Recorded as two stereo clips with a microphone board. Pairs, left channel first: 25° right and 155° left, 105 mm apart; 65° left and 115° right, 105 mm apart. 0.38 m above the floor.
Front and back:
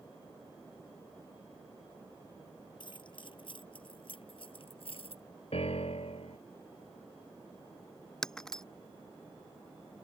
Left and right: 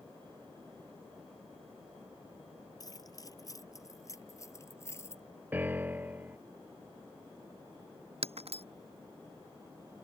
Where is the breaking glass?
105° right.